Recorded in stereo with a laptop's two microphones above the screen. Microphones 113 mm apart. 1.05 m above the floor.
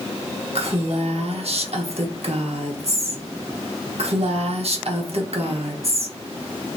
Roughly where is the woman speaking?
Right.